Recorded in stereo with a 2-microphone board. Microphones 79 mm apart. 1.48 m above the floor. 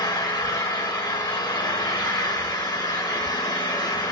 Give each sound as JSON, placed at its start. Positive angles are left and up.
{"t": 0.0, "sound": "an engine running", "side_deg": 60, "distance_m": 1.3}